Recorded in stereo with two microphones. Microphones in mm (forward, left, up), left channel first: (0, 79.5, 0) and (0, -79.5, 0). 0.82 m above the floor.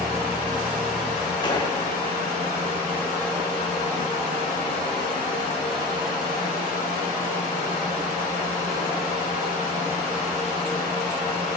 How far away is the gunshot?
About 1.5 m.